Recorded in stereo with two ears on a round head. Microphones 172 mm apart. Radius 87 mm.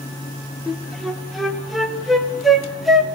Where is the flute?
Centre (ahead or behind), 1.7 m.